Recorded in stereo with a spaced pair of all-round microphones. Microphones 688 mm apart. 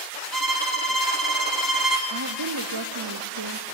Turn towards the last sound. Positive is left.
turn(degrees=-35)  # may be behind; listen again after turning